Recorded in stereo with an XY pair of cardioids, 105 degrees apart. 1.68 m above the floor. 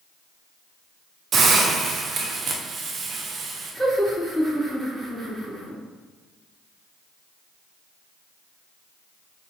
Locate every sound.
1.3 s a hiss: 50° right, 0.7 m
3.7 s laughter: 10° right, 2.0 m